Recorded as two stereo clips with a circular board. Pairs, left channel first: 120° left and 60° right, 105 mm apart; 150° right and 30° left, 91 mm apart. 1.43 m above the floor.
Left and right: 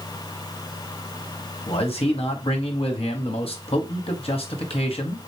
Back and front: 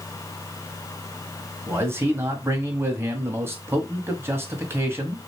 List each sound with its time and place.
1.7 s a man speaking: 95° left, 1.2 m